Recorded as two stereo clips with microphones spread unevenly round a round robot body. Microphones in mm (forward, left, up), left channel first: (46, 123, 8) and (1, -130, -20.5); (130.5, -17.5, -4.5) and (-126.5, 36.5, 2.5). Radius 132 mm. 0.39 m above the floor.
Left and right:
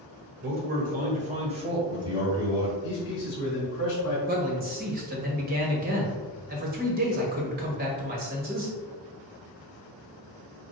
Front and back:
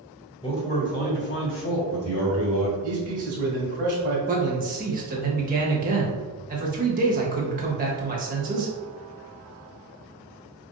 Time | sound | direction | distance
0.4 | a man speaking | 75° right | 1.3 m
2.8 | a man speaking | 115° left | 1.3 m
4.3 | a man speaking | 140° right | 1.2 m